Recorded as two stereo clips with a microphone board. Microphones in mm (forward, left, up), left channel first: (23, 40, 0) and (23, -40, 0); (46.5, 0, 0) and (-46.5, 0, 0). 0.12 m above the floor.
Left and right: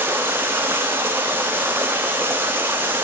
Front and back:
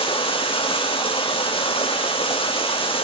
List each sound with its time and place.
0.0 s running water: 25° right, 1.8 m